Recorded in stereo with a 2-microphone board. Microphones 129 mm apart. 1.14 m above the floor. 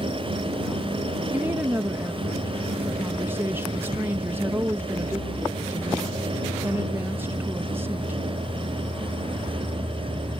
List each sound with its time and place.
1.3 s a woman speaking: 15° right (ahead or behind)